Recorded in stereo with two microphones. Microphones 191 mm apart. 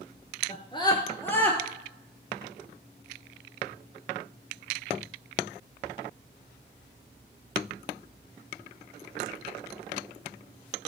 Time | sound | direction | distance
0.5 | a scream | 35° left (ahead or behind) | 1.6 m